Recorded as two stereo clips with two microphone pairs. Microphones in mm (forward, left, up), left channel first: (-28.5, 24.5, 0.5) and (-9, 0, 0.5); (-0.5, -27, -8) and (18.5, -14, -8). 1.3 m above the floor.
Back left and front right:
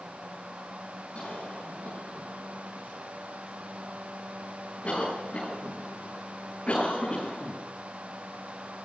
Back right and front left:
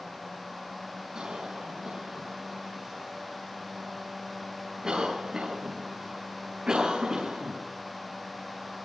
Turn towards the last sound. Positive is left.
turn(degrees=85)